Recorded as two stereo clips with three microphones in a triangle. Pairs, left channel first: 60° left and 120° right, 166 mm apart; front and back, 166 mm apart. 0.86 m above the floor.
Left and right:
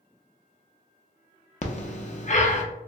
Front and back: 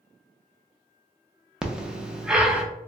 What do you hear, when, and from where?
1.6 s breathing: 95° left, 0.5 m